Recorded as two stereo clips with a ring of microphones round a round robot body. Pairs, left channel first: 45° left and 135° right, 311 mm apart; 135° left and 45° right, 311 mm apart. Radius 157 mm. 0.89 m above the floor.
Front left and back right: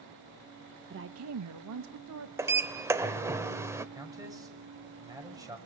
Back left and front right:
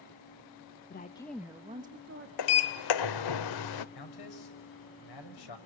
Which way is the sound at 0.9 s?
Straight behind.